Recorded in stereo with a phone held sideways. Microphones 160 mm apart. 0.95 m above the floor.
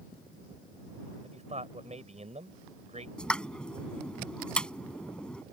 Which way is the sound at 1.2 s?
45° right (ahead or behind).